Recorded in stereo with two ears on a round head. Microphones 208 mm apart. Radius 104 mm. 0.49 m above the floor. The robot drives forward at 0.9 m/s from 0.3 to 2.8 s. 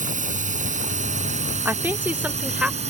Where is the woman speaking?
10° right (ahead or behind); by 2.8 s 5° right (ahead or behind).